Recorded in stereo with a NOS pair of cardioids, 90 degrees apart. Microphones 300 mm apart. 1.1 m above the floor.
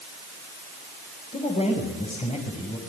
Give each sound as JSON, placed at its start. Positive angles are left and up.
{"t": 1.3, "sound": "a man speaking", "azimuth_deg": 20, "distance_m": 6.0}